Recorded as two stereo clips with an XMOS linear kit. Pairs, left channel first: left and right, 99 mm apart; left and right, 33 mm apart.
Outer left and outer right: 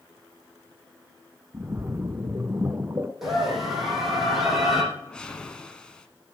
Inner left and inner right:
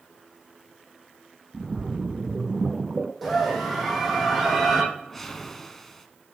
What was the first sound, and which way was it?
A splash, 25° right (ahead or behind).